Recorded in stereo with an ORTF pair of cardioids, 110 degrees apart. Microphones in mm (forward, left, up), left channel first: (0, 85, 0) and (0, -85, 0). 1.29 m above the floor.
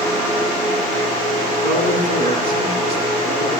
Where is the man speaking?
65° right, 9.5 m.